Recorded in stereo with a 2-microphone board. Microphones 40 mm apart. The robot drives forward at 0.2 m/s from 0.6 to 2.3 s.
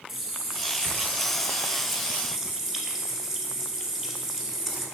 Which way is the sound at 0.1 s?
15° right (ahead or behind).